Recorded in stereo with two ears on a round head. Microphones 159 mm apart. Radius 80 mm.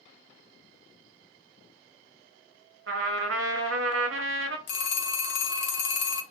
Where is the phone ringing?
60° left (ahead or behind), 0.6 m.